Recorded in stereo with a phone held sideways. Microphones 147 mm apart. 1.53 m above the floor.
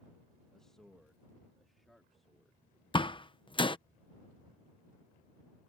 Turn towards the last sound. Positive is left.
turn(degrees=35)  # may be behind; listen again after turning